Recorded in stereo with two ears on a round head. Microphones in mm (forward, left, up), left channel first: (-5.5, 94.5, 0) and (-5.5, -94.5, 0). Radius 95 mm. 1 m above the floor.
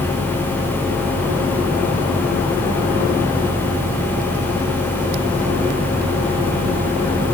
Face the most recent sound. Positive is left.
No sound to turn to.